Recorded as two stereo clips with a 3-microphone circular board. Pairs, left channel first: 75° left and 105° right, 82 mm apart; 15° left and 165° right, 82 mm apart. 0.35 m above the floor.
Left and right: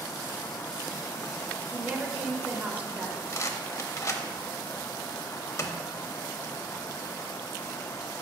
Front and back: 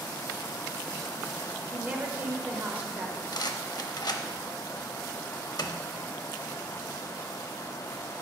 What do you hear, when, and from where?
1.7 s a woman speaking: 145° right, 0.8 m
3.3 s a rattle: 30° left, 0.6 m